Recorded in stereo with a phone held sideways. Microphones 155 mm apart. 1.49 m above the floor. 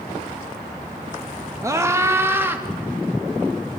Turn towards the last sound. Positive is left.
turn(degrees=-15)  # may be behind; listen again after turning